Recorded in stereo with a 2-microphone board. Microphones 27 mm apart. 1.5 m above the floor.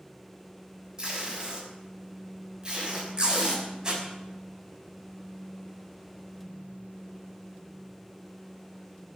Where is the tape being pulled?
25° right (ahead or behind), 6.5 m.